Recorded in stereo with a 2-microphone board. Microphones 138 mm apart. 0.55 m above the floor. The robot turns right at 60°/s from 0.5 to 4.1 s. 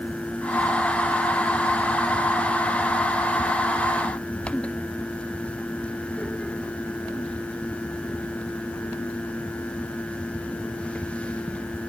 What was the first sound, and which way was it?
Only background noise.